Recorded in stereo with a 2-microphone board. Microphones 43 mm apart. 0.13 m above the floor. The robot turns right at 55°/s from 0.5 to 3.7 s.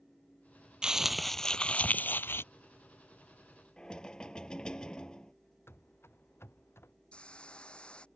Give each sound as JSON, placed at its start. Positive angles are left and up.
{"t": 0.8, "sound": "crumpling", "azimuth_deg": -20}
{"t": 3.8, "sound": "knocking", "side_deg": 20}
{"t": 5.7, "sound": "running footsteps", "side_deg": 70}
{"t": 7.1, "sound": "a hiss", "side_deg": 25}